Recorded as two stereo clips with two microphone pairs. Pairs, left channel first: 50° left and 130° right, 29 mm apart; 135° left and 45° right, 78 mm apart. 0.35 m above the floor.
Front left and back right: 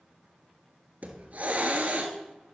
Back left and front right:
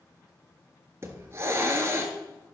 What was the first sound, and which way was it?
A hiss, 105° right.